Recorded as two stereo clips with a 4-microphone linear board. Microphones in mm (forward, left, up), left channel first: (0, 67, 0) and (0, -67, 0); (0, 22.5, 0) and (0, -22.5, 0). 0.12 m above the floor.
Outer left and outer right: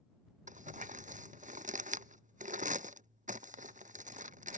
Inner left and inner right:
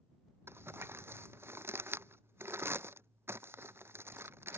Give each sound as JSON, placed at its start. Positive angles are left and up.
{"t": 0.5, "sound": "crumpling", "side_deg": -70}